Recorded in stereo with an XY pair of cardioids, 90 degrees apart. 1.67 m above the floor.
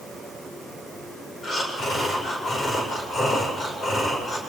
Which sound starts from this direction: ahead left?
Breathing, at 1.4 s.